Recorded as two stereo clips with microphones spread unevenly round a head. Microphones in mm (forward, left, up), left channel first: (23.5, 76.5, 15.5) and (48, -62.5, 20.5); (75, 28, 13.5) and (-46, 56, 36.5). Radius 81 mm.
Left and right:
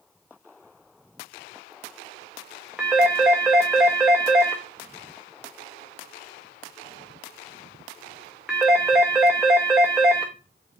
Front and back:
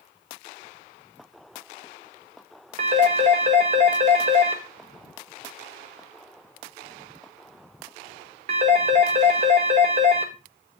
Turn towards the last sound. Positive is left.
turn(degrees=-165)